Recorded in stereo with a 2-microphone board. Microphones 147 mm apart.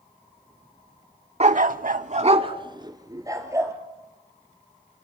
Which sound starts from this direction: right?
A dog barking, at 1.4 s.